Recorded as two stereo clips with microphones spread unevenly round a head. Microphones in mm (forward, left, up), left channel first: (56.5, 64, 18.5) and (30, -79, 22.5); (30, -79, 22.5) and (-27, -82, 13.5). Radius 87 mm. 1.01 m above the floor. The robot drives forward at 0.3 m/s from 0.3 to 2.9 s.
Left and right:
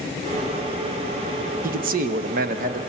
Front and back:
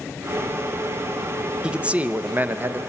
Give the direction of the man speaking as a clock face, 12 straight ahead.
4 o'clock.